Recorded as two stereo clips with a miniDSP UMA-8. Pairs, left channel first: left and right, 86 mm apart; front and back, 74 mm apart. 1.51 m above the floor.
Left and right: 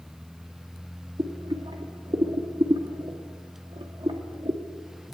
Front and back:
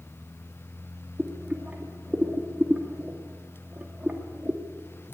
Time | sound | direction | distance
1.2 | boiling | 110° right | 2.5 m